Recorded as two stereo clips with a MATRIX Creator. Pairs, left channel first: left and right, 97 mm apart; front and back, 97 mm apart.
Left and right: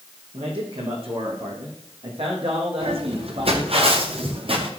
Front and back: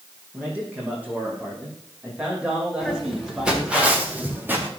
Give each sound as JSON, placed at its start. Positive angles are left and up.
{"t": 0.3, "sound": "a man speaking", "azimuth_deg": -110, "distance_m": 8.0}
{"t": 2.8, "sound": "footsteps", "azimuth_deg": -90, "distance_m": 6.0}